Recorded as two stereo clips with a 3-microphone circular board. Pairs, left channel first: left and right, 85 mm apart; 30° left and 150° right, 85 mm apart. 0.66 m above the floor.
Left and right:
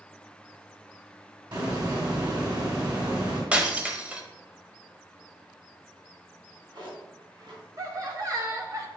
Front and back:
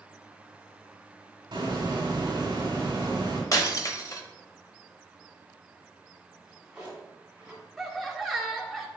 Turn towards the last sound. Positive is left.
turn(degrees=-60)